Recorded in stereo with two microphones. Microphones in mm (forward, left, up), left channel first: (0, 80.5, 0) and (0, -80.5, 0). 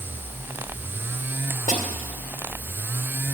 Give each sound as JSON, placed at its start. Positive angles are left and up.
{"t": 1.7, "sound": "a snare drum", "side_deg": 55, "distance_m": 2.0}